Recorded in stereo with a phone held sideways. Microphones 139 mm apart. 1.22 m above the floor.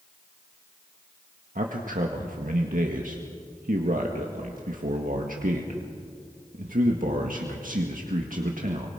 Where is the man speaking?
80° right, 1.8 m.